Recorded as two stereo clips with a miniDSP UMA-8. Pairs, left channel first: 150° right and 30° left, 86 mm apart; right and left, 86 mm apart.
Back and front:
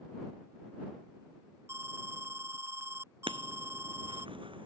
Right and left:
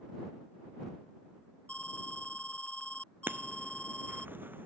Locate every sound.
1.7 s an alarm: 20° right
3.3 s writing: 25° left